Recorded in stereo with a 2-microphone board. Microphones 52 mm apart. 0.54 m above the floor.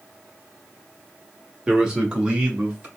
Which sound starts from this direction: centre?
A man speaking, at 1.7 s.